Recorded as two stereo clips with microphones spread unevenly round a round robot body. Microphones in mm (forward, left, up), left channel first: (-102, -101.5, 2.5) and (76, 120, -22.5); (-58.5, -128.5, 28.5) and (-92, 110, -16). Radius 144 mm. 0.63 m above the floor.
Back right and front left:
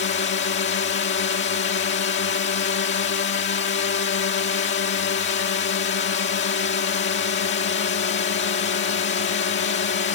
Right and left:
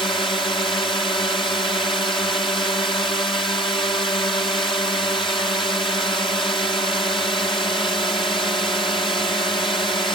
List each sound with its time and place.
0.0 s a drone: 155° right